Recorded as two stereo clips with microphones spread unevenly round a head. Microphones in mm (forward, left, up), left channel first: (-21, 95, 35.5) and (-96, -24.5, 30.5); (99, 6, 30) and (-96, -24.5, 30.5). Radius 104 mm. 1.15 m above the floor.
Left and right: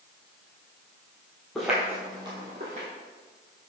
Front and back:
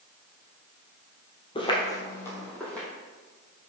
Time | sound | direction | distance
1.6 | footsteps | 20° right | 1.2 m